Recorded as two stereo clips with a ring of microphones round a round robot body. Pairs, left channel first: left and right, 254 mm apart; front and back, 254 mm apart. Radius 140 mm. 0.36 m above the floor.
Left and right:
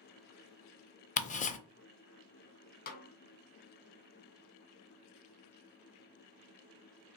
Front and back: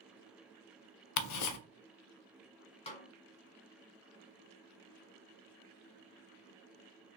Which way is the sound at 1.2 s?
25° left.